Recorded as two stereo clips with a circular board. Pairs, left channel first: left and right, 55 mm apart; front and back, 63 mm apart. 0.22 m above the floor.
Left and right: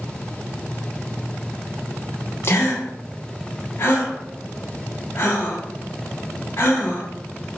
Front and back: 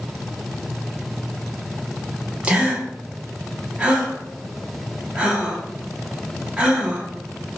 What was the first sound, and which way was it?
A gasp, 110° left.